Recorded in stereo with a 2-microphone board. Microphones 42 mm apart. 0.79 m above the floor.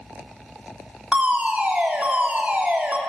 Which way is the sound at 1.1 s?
40° right (ahead or behind).